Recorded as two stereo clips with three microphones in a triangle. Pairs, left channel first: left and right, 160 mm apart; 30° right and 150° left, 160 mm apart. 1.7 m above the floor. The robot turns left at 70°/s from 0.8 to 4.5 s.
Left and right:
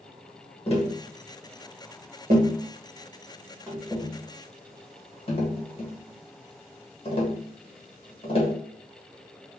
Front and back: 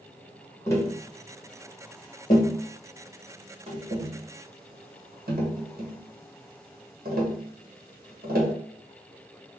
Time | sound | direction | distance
0.7 | tapping | 40° left | 1.5 m